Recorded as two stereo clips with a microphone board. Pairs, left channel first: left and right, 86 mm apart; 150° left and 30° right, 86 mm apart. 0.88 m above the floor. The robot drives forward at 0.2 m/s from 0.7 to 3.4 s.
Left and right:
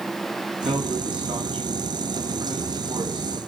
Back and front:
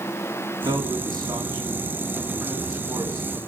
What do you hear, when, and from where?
0.7 s a man speaking: 75° right, 7 m; by 3.5 s 80° right, 7 m